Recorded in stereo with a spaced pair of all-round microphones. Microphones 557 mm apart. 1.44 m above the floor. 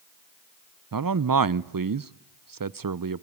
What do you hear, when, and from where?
0.9 s a man speaking: 40° right (ahead or behind), 0.5 m